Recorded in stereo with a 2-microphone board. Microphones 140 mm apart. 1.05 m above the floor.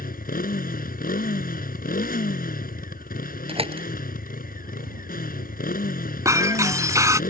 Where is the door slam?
40° right (ahead or behind).